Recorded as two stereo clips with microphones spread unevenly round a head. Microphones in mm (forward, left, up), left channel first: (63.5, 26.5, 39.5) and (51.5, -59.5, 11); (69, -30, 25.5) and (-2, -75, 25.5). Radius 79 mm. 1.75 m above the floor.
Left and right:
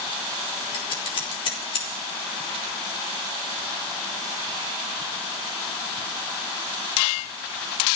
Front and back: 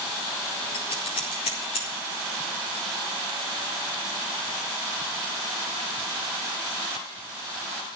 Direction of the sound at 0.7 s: 65° left.